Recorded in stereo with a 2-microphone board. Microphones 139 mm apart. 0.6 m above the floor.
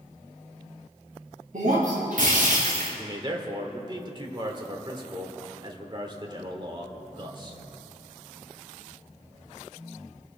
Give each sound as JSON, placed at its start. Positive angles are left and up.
{"t": 1.5, "sound": "breaking glass", "side_deg": -70, "distance_m": 4.0}
{"t": 3.0, "sound": "a man speaking", "side_deg": -35, "distance_m": 1.6}